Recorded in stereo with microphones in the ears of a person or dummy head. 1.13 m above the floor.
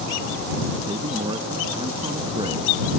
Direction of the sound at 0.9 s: 25° right (ahead or behind).